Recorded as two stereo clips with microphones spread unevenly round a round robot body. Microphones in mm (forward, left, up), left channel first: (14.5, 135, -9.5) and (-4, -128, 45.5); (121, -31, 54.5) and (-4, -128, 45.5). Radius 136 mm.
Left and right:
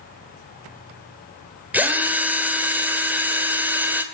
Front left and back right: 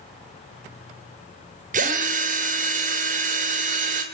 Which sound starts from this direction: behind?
A drill, at 1.7 s.